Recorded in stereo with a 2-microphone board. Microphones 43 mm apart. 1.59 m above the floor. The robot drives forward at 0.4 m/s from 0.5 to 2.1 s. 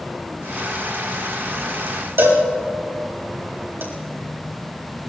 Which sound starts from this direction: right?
A cowbell, at 2.2 s.